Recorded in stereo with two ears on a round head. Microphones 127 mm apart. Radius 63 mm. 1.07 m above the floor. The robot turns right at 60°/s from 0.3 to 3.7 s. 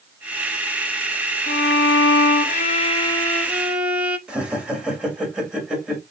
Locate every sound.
1.5 s a violin: 55° left, 0.8 m; by 4.2 s 170° right, 0.8 m
4.3 s laughter: 10° right (ahead or behind), 1.8 m